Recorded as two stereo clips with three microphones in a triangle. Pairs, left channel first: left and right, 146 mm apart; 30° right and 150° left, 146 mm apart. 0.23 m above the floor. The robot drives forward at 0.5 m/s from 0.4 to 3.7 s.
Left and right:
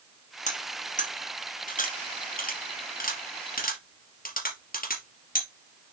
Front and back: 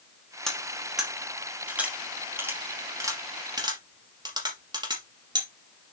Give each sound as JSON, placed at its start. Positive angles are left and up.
{"t": 0.5, "sound": "cutlery clinking", "azimuth_deg": 55, "distance_m": 3.0}